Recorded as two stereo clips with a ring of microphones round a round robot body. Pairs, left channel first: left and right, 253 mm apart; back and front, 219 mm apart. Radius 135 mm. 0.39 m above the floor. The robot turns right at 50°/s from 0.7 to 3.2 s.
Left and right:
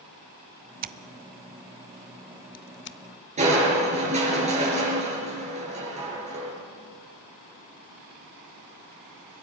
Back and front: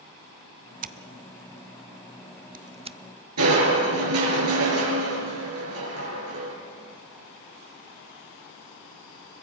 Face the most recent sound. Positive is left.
turn(degrees=-25)